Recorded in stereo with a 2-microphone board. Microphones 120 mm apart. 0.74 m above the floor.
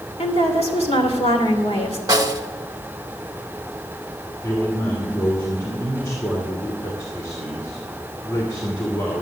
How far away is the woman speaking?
About 3 m.